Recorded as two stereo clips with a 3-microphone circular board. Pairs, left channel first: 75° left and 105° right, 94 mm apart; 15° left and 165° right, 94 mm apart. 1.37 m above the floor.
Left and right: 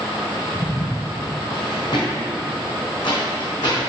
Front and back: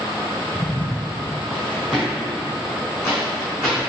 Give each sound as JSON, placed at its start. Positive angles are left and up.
{"t": 0.6, "sound": "footsteps", "azimuth_deg": 75, "distance_m": 1.6}